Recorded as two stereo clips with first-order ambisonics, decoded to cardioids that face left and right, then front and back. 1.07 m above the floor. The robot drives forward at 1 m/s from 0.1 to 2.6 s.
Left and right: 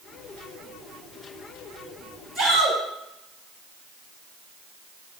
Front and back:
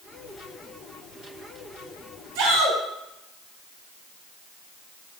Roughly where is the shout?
Behind.